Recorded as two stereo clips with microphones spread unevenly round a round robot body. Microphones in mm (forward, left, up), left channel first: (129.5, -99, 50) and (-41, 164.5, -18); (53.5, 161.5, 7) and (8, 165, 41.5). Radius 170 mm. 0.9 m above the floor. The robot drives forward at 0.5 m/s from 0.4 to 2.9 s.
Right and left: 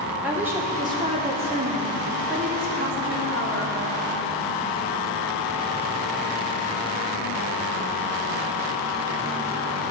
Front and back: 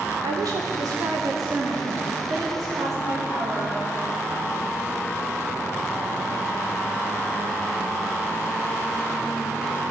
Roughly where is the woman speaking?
Behind.